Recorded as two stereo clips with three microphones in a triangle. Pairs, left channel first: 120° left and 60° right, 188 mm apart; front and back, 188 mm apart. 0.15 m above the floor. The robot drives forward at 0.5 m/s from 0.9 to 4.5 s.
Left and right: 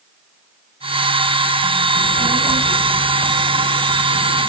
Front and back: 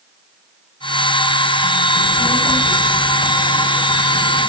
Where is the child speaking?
165° right, 3 m; by 4.5 s 170° right, 4.5 m.